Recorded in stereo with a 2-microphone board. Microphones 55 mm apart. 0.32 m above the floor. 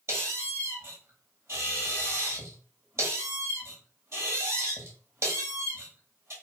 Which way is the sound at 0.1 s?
50° right (ahead or behind).